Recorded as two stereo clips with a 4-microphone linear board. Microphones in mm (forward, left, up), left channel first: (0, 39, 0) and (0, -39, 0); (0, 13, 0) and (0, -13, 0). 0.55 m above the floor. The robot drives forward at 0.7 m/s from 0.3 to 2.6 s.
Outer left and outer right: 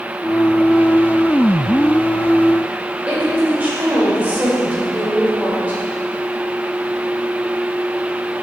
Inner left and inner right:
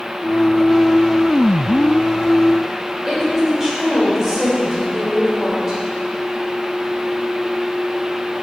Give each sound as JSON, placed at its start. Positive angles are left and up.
{"t": 3.1, "sound": "a woman speaking", "side_deg": -20, "distance_m": 2.5}